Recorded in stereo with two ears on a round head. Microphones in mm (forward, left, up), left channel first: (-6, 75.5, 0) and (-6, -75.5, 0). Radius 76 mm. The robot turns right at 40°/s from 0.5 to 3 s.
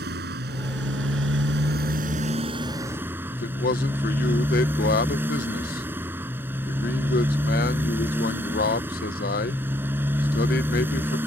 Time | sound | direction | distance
0.0 | a motorcycle | 110° right | ?
3.3 | a man speaking | 55° left (ahead or behind) | ?